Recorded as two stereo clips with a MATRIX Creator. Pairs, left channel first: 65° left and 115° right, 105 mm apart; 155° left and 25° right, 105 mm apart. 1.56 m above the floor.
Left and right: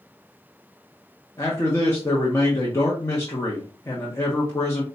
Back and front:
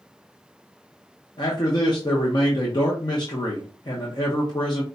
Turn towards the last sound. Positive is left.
turn(degrees=125)